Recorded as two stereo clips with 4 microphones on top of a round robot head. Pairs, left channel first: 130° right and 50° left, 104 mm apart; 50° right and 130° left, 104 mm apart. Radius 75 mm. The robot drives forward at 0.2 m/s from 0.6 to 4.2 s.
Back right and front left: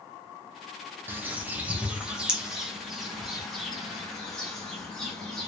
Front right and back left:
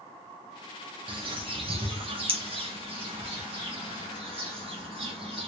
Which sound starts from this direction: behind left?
A bird, at 1.1 s.